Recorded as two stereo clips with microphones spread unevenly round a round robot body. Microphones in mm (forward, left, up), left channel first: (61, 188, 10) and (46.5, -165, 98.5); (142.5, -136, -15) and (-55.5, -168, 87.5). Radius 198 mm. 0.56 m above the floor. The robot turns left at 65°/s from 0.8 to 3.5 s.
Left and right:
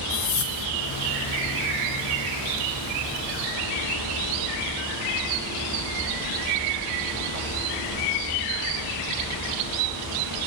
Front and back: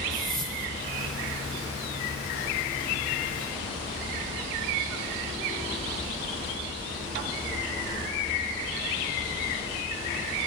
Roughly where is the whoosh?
Left.